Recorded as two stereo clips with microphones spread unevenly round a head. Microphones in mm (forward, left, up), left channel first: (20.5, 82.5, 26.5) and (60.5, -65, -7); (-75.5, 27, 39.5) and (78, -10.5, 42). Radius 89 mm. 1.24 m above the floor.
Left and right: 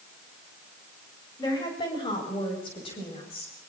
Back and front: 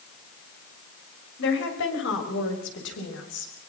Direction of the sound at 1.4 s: 175° left.